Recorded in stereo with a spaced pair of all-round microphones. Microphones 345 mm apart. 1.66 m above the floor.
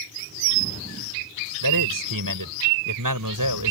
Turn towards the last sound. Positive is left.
turn(degrees=-65)  # may be behind; listen again after turning